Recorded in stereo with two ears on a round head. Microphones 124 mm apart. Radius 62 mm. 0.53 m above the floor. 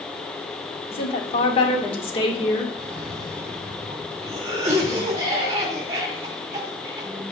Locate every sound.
0.9 s a woman speaking: 40° left (ahead or behind), 1.1 m
2.8 s a cough: 25° right (ahead or behind), 2 m